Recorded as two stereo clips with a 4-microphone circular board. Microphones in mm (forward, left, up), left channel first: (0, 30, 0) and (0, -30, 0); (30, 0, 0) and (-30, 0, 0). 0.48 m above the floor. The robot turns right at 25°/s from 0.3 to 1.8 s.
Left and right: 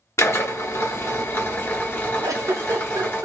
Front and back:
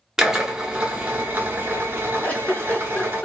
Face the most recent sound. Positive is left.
turn(degrees=-65)